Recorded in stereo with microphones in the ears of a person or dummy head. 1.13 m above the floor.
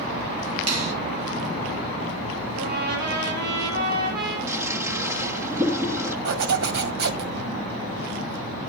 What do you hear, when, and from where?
0.7 s a finger snap: 90° right, 4.5 m
2.5 s a trumpet: 55° right (ahead or behind), 8 m
4.5 s a toilet flushing: 20° right (ahead or behind), 1.2 m
6.2 s a zipper: 60° right (ahead or behind), 1.8 m